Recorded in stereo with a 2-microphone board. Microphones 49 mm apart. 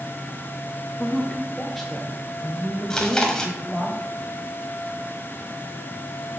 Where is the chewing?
15° left (ahead or behind), 1.4 m.